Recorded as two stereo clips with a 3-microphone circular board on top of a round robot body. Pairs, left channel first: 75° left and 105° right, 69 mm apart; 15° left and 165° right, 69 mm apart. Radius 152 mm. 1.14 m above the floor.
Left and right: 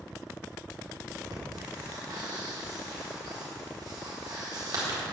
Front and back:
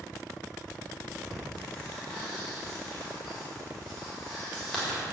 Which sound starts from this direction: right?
Breathing, at 1.3 s.